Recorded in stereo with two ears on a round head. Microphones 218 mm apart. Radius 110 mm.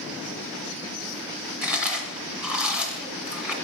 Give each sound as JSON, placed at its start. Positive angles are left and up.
{"t": 1.6, "sound": "chewing", "side_deg": -5, "distance_m": 1.6}